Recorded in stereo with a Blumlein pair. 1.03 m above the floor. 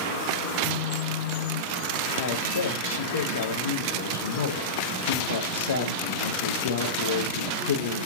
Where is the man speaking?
65° left, 0.6 m.